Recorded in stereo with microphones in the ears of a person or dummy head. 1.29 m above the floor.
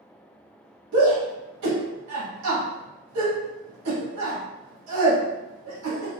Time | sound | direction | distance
0.9 | a shout | 85° right | 1.7 m